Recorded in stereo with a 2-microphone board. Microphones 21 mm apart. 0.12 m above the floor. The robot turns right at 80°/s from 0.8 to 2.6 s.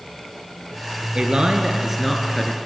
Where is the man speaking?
80° right, 2 m; by 2.5 s 35° left, 2 m.